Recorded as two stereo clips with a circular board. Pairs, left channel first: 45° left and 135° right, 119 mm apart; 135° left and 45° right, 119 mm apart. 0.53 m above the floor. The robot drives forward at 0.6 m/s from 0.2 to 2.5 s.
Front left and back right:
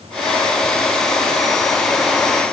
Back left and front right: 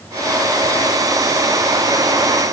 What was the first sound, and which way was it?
Only background noise.